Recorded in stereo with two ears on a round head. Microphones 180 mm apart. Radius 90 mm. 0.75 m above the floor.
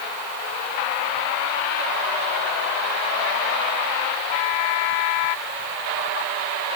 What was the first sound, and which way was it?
Only background noise.